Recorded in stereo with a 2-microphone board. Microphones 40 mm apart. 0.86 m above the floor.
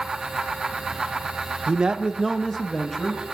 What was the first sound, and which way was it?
A man speaking, 30° right (ahead or behind).